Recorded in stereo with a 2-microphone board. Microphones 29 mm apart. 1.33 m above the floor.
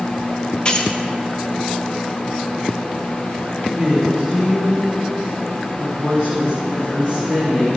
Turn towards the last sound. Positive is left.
turn(degrees=-45)  # may be behind; listen again after turning